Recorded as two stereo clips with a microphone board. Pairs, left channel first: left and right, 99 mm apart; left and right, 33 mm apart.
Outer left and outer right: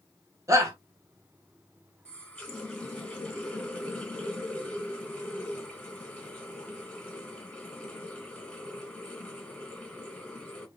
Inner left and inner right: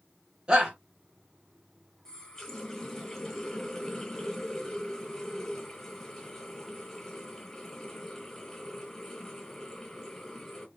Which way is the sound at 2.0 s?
10° left (ahead or behind).